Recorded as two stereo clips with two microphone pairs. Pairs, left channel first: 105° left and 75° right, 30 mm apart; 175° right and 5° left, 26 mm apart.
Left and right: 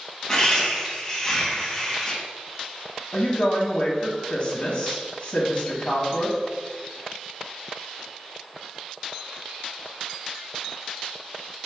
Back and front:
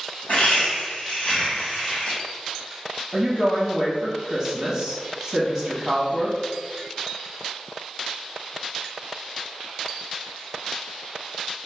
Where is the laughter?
165° left, 1.6 m.